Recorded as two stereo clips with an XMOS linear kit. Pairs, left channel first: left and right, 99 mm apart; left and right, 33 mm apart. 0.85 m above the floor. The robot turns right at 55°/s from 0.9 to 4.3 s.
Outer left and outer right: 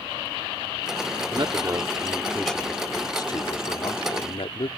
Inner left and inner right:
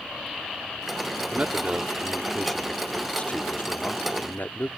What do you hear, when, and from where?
1.3 s a man speaking: 60° right; by 4.7 s 105° left